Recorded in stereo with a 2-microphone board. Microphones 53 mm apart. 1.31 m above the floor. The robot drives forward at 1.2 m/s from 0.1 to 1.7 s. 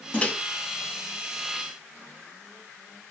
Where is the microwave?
25° left (ahead or behind), 1.6 m; by 0.3 s 30° left (ahead or behind), 1.4 m.